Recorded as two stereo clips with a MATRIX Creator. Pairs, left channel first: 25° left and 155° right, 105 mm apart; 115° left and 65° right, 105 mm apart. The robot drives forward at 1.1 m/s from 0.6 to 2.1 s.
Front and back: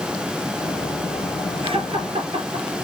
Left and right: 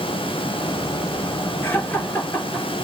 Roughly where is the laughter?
Behind.